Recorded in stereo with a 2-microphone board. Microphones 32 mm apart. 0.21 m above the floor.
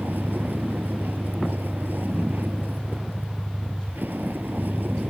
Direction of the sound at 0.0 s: 75° right (ahead or behind).